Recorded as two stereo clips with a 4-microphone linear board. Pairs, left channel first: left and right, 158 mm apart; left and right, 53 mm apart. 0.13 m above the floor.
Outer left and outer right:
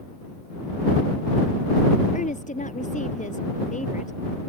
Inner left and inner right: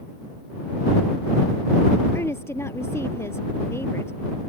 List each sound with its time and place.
2.1 s a woman speaking: 50° left (ahead or behind)